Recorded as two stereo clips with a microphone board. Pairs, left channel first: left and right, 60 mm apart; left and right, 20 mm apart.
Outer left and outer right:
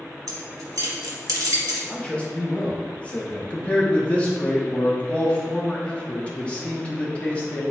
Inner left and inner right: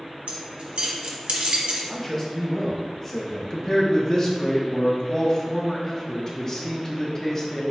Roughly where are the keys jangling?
Right.